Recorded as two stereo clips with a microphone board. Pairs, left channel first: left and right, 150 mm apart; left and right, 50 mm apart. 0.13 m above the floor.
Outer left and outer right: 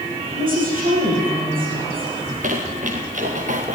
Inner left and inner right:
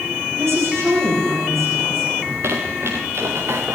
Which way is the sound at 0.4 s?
70° right (ahead or behind).